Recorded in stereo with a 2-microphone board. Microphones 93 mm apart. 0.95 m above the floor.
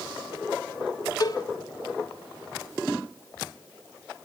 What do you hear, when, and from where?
1.2 s a cowbell: 45° left (ahead or behind), 1.1 m